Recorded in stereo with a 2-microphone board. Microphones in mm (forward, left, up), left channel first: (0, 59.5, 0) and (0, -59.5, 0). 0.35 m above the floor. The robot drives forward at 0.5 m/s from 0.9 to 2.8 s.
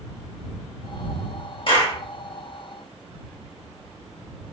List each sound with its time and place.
1.7 s a clap: 45° left (ahead or behind), 1.0 m; by 2.0 s 40° left (ahead or behind), 1.1 m